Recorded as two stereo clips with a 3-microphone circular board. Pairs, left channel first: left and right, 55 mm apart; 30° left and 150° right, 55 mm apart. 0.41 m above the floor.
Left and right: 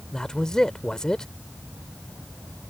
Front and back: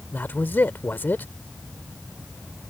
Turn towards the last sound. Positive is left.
turn(degrees=20)